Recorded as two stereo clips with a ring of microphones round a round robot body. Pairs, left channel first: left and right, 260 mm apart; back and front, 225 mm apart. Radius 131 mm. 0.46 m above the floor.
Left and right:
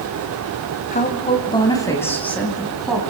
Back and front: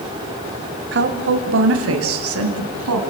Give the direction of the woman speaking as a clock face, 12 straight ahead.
11 o'clock.